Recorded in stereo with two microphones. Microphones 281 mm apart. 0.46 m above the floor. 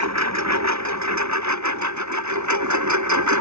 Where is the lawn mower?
70° right (ahead or behind); by 3.4 s 85° right.